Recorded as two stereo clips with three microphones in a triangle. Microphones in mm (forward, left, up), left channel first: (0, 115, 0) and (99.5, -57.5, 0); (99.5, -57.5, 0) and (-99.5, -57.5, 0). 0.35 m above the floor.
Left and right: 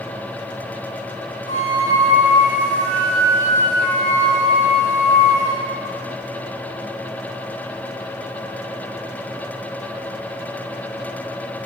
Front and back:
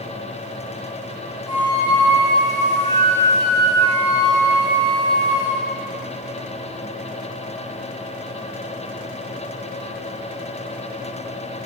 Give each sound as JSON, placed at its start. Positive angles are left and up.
{"t": 1.5, "sound": "a flute", "azimuth_deg": 75, "distance_m": 3.5}